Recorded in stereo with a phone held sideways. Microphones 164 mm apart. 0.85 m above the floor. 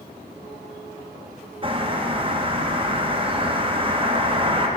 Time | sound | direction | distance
1.6 | a bird | 30° right (ahead or behind) | 0.7 m